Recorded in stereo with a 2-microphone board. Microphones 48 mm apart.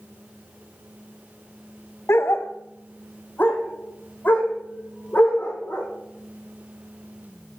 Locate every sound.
2.1 s a dog barking: 60° left (ahead or behind), 0.5 m; by 5.9 s 35° left (ahead or behind), 3 m